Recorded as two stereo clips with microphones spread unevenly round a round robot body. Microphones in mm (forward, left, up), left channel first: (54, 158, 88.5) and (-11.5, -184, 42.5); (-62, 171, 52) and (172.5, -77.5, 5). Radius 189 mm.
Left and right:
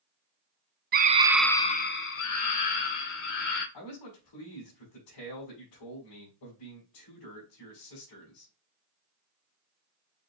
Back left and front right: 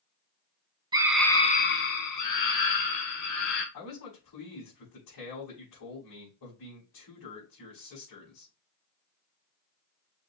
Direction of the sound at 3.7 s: 105° left.